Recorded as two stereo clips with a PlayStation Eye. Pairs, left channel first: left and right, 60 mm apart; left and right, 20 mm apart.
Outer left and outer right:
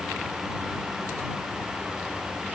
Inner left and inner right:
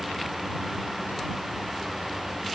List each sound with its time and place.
Only background noise.